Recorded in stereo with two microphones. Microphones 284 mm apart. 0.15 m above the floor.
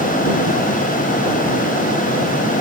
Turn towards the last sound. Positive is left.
No sound to turn to.